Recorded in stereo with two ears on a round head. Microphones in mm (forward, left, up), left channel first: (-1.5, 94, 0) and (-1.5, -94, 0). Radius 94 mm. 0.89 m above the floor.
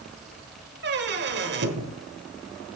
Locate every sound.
0.8 s a squeak: 50° right (ahead or behind), 1.2 m